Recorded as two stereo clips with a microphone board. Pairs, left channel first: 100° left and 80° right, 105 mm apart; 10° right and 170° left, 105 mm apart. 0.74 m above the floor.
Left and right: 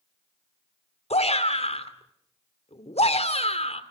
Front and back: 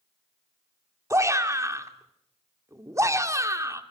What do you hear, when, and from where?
1.1 s a shout: 110° left, 2.5 m